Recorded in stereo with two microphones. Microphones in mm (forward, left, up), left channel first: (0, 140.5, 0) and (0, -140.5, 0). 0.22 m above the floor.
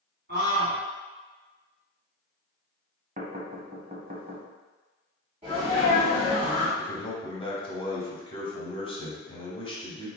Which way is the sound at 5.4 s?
25° right (ahead or behind).